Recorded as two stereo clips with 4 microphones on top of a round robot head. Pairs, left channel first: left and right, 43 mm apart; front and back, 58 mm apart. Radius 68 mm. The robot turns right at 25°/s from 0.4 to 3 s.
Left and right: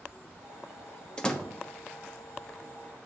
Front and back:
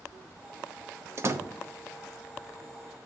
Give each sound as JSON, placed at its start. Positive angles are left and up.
{"t": 1.2, "sound": "a door slam", "azimuth_deg": 150, "distance_m": 0.7}